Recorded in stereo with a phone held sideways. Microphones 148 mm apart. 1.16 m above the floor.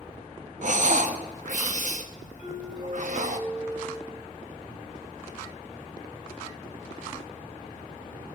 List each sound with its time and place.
0.6 s breathing: 60° right (ahead or behind), 0.8 m
2.4 s a doorbell: 35° left (ahead or behind), 5.5 m